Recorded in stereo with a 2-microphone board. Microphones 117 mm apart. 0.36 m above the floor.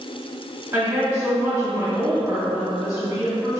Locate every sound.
0.7 s a woman speaking: 30° right (ahead or behind), 1.7 m